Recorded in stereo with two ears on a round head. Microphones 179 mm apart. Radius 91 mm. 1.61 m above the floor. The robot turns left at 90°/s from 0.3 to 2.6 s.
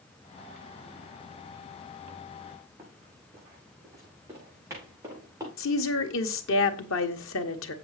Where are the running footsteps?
15° right (ahead or behind), 4.5 m.